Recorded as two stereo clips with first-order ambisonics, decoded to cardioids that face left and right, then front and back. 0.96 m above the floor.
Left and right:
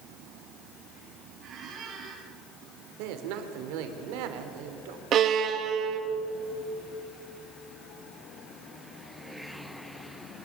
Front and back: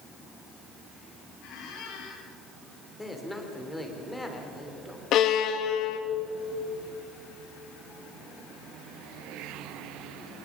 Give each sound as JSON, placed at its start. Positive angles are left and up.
{"t": 1.4, "sound": "a squeak", "azimuth_deg": -35, "distance_m": 4.5}
{"t": 3.0, "sound": "a man speaking", "azimuth_deg": -85, "distance_m": 3.0}
{"t": 5.1, "sound": "a violin", "azimuth_deg": -40, "distance_m": 1.5}